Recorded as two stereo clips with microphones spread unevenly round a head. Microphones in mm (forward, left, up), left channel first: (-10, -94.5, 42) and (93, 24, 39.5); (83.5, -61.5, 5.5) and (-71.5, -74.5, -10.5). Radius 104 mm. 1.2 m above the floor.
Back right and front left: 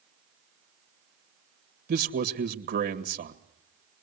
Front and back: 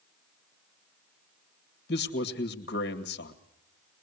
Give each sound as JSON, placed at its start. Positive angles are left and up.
{"t": 1.9, "sound": "a man speaking", "azimuth_deg": 45, "distance_m": 1.8}